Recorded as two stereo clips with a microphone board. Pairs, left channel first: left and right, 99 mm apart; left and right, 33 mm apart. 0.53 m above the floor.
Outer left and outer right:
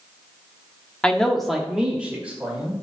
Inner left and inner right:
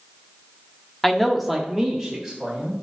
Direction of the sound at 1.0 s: 10° left (ahead or behind).